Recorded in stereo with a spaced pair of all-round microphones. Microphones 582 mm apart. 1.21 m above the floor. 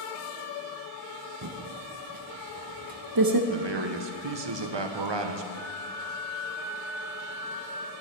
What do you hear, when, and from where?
1.4 s typing on a keyboard: 40° right (ahead or behind), 0.7 m
3.5 s a man speaking: 45° right (ahead or behind), 0.8 m
5.5 s a flute: 65° left (ahead or behind), 1.4 m